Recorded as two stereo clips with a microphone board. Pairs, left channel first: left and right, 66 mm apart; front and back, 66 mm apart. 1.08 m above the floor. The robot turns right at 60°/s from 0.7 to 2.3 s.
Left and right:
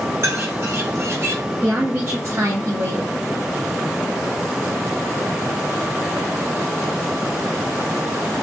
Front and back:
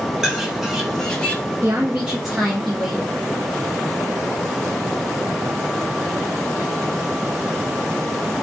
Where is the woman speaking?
135° right, 0.7 m; by 3.1 s 95° right, 0.7 m.